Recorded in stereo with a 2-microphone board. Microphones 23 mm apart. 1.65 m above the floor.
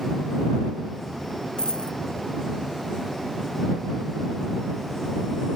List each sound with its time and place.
1.6 s a dropped coin: 40° left (ahead or behind)